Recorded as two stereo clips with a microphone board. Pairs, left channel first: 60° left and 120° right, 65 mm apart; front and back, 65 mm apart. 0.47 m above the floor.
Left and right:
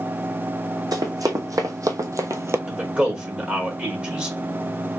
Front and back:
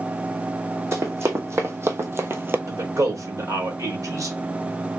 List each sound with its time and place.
0.9 s running footsteps: 140° right, 1.5 m
2.7 s a man speaking: 170° left, 1.6 m